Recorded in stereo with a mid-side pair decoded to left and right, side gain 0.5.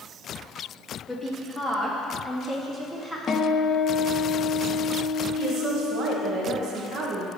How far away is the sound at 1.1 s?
About 3 m.